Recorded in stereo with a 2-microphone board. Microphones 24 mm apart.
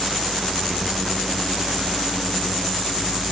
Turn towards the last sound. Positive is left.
No sound to turn to.